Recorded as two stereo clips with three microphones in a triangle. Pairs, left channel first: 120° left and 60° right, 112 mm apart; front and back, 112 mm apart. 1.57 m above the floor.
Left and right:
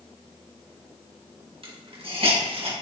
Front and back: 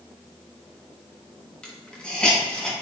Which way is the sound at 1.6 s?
80° right.